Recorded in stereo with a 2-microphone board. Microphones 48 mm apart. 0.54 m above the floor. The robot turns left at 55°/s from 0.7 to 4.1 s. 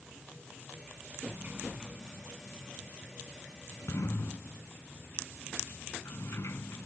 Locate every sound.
1.3 s a sliding door: 40° right (ahead or behind); by 6.9 s 65° left (ahead or behind)